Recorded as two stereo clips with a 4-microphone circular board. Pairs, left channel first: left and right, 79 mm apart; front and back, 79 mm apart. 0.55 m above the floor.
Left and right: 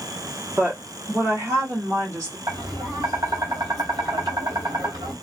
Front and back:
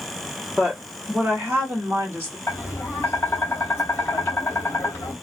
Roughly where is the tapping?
Ahead right.